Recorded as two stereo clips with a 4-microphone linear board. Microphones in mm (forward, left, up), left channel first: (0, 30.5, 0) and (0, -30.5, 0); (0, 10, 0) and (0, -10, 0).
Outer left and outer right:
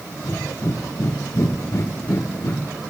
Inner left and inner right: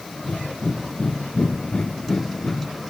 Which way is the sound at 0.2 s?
50° left (ahead or behind).